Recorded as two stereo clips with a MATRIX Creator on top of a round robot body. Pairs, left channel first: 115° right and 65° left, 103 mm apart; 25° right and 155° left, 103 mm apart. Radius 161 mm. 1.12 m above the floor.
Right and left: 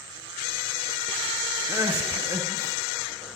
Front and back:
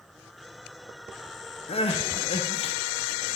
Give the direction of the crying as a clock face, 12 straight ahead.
12 o'clock.